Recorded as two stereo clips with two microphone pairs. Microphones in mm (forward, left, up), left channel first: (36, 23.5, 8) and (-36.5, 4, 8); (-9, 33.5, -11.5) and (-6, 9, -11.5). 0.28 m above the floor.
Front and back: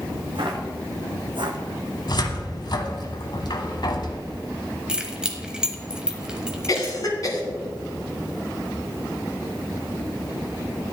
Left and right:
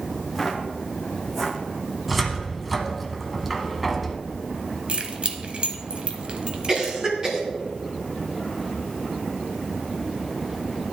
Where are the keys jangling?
90° right, 1.1 m.